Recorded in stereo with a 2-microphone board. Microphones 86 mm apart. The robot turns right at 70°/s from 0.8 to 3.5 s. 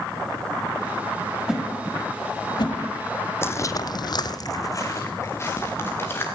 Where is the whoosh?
10° right (ahead or behind), 1.6 m; by 2.8 s 75° left (ahead or behind), 1.6 m.